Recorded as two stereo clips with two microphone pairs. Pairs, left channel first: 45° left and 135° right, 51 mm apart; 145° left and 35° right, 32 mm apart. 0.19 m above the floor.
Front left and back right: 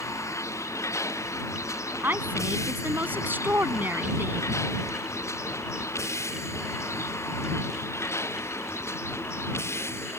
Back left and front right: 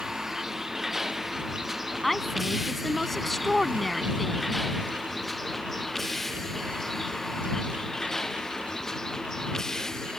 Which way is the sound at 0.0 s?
45° left.